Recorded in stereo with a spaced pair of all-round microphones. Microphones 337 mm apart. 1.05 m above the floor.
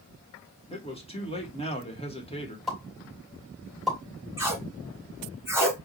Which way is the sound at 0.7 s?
15° left (ahead or behind).